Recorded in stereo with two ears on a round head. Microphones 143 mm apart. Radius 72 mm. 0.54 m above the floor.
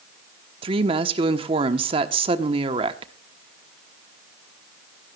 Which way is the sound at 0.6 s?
35° right (ahead or behind).